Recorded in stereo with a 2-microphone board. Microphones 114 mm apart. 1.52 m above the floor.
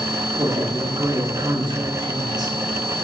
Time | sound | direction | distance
0.4 | a woman speaking | 35° right (ahead or behind) | 1.8 m